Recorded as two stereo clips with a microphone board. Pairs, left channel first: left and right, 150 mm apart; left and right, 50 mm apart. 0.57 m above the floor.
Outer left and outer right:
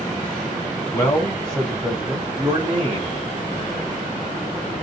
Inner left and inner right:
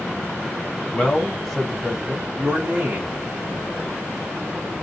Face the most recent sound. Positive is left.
turn(degrees=-45)  # may be behind; listen again after turning